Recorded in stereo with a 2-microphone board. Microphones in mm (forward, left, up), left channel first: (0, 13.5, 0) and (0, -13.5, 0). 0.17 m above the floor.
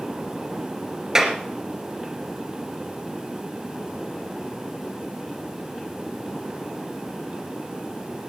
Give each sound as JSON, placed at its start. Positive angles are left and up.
{"t": 1.1, "sound": "a clap", "side_deg": -20, "distance_m": 2.0}